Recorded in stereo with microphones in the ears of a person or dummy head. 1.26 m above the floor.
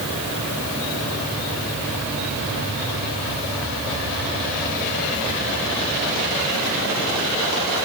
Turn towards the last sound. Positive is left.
No sound to turn to.